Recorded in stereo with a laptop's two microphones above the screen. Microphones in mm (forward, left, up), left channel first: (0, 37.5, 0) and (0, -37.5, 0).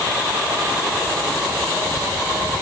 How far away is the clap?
No clap in this recording.